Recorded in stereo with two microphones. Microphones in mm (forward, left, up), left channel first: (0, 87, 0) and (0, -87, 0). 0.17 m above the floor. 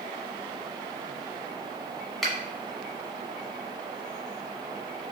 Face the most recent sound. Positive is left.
turn(degrees=0)  # may be behind; listen again after turning